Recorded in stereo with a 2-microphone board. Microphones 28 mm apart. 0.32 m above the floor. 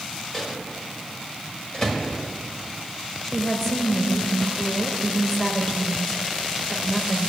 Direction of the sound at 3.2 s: 10° left (ahead or behind).